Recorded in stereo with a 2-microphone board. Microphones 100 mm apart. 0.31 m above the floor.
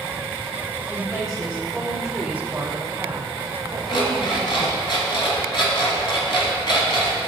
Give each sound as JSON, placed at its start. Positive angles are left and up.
{"t": 0.9, "sound": "a woman speaking", "side_deg": 30, "distance_m": 1.1}
{"t": 3.9, "sound": "an alarm clock", "side_deg": 55, "distance_m": 1.4}